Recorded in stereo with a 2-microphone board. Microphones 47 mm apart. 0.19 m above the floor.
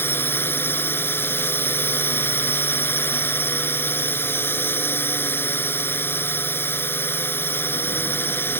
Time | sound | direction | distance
0.0 | a drone | 50° left (ahead or behind) | ?